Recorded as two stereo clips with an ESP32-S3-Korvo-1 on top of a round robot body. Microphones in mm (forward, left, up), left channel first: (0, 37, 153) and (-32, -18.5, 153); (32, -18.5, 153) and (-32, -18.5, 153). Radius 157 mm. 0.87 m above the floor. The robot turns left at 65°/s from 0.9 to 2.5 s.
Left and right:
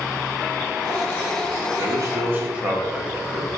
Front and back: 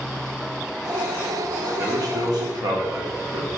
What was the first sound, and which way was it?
A man speaking, 145° right.